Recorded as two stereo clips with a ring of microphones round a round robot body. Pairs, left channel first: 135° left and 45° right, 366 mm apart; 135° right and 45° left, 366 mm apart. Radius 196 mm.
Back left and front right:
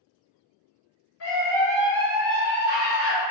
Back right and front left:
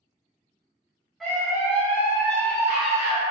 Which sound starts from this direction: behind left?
A scream, at 1.2 s.